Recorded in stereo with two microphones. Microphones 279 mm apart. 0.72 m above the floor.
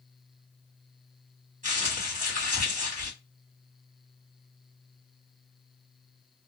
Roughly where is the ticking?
I don't hear ticking.